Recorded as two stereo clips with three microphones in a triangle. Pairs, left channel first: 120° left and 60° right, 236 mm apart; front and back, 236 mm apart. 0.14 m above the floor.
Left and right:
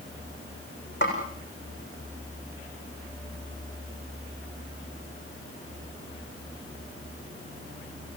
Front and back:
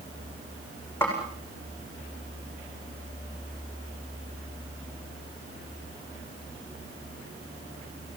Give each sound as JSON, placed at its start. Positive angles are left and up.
{"t": 1.0, "sound": "a snare drum", "azimuth_deg": 80, "distance_m": 8.0}